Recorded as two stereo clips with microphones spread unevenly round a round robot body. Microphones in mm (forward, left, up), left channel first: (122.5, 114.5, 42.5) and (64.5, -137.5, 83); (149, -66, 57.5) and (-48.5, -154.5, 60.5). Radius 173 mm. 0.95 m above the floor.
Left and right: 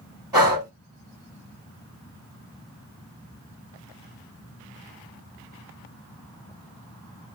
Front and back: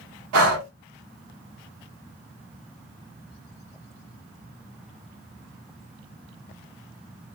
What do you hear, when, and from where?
0.3 s breathing: straight behind, 1.2 m